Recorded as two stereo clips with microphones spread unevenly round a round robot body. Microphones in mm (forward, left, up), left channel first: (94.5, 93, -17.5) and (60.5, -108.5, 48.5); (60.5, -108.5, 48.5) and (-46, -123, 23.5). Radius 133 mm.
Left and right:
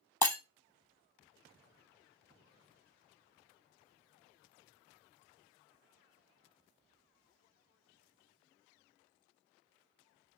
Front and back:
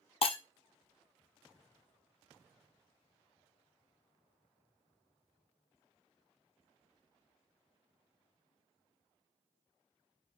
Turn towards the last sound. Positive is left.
turn(degrees=-5)